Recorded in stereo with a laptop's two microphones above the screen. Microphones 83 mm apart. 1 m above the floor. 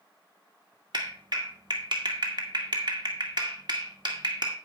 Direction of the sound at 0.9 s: 60° right (ahead or behind).